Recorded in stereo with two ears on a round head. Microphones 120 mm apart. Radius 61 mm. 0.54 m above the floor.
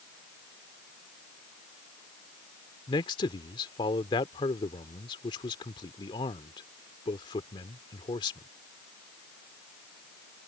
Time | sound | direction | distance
2.9 | a man speaking | 35° left (ahead or behind) | ?